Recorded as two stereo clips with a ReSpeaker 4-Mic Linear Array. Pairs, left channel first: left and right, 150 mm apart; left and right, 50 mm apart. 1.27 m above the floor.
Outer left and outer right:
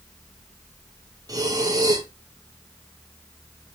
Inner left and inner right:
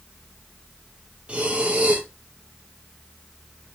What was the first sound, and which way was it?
Breathing, 25° right (ahead or behind).